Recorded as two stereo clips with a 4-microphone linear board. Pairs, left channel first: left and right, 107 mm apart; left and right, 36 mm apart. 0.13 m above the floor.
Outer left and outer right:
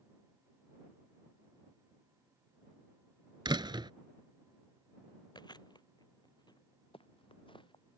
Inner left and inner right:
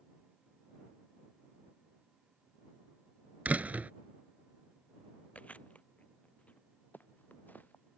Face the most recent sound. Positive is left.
turn(degrees=50)  # may be behind; listen again after turning